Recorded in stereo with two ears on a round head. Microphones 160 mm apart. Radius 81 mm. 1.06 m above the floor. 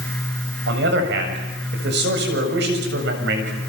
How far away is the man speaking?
About 7 m.